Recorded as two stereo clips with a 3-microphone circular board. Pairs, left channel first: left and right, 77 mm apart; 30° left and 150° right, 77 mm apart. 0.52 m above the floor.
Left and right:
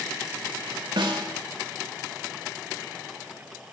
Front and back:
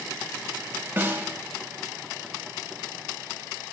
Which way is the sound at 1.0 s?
85° right.